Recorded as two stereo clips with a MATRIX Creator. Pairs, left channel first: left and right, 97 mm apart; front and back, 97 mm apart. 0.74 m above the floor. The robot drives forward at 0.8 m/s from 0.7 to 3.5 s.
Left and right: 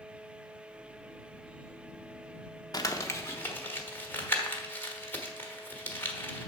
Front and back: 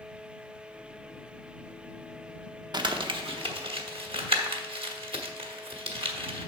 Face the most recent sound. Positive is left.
turn(degrees=155)